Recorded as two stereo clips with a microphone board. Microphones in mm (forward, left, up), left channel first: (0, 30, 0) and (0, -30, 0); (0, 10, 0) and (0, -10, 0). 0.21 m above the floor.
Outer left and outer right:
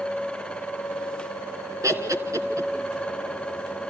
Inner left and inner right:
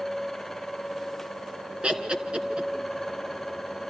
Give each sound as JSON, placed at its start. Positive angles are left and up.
{"t": 1.8, "sound": "laughter", "side_deg": -60, "distance_m": 3.0}